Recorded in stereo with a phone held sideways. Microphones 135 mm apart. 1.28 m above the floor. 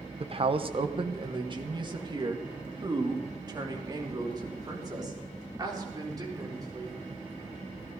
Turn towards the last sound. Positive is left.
turn(degrees=-30)  # may be behind; listen again after turning